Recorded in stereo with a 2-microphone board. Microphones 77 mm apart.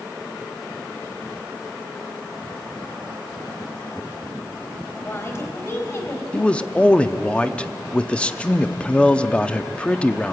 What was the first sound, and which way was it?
A woman speaking, 35° left (ahead or behind).